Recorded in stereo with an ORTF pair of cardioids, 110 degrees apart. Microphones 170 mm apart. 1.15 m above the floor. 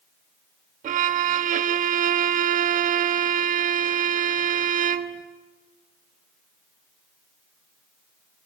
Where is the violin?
55° right, 1.4 m.